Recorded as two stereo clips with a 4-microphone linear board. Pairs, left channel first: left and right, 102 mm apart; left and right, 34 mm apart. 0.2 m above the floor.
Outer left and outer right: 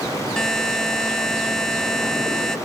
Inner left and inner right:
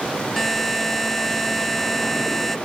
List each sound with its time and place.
0.4 s a buzzer: 5° left (ahead or behind)